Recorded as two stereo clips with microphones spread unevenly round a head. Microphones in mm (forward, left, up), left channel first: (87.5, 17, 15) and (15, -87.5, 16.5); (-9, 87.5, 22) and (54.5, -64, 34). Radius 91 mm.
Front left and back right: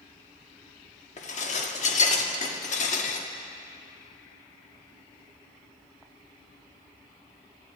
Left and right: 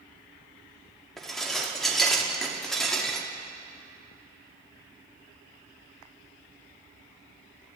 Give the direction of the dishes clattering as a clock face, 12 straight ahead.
11 o'clock.